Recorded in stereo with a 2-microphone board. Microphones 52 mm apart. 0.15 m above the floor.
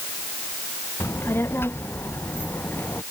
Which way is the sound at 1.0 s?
50° left (ahead or behind).